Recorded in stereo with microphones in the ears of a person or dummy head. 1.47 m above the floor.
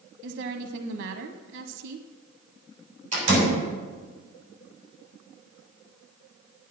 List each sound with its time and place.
0.2 s a woman speaking: 65° right (ahead or behind), 0.8 m
3.1 s a door slam: 40° right (ahead or behind), 6.5 m